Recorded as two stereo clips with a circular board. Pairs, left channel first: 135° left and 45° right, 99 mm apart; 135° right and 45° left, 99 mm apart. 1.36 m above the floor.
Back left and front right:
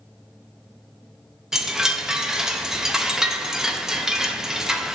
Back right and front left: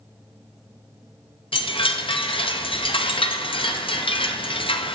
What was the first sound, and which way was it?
A chime, 130° right.